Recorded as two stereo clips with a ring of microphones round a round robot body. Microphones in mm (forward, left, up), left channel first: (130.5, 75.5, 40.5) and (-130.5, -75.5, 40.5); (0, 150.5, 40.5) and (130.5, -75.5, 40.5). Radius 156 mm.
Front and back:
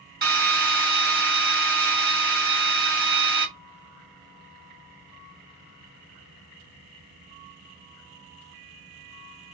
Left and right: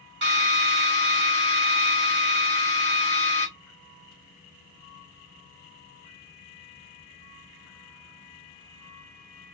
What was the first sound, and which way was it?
A drill, 95° right.